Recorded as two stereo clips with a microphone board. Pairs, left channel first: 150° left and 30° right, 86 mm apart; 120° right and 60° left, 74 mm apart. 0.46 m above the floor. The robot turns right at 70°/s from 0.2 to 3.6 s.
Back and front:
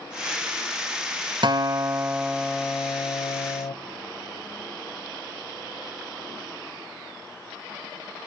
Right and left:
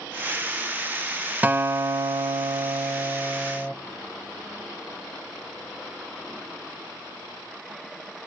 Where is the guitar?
5° right, 0.6 m; by 3.8 s 145° left, 0.6 m.